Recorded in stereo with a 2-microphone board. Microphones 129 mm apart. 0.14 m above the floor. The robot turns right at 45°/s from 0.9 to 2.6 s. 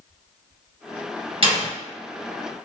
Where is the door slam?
45° right (ahead or behind), 1.8 m; by 1.7 s 40° right (ahead or behind), 1.8 m.